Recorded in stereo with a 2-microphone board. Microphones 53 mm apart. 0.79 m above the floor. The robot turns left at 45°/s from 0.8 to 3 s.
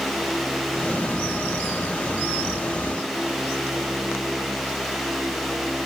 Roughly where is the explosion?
No explosion in this recording.